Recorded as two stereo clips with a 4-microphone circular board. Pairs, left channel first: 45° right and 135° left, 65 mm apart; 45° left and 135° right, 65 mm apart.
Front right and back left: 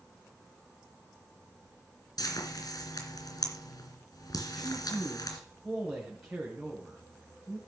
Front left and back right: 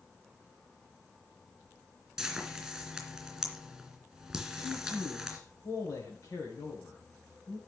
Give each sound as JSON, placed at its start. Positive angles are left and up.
{"t": 2.2, "sound": "frying", "azimuth_deg": -50, "distance_m": 3.5}
{"t": 4.5, "sound": "a man speaking", "azimuth_deg": 50, "distance_m": 2.5}